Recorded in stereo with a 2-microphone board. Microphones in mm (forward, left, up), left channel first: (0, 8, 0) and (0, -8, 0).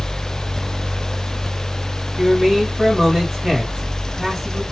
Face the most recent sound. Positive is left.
turn(degrees=-45)  # may be behind; listen again after turning